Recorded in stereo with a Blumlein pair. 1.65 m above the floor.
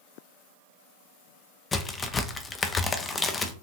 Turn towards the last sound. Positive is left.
turn(degrees=20)